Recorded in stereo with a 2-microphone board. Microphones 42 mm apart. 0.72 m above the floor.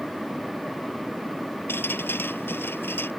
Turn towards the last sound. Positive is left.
turn(degrees=55)  # may be behind; listen again after turning